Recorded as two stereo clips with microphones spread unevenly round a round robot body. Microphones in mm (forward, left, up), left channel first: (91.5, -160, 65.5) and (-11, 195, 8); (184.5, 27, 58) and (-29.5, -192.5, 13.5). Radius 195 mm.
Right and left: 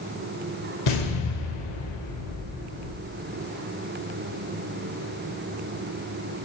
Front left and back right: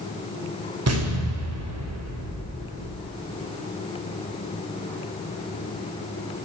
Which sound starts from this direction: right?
An explosion, at 0.9 s.